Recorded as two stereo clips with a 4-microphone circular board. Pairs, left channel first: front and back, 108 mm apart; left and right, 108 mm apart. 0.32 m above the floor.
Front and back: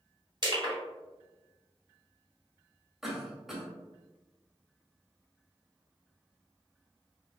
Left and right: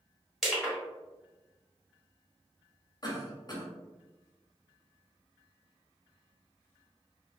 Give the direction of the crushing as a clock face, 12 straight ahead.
6 o'clock.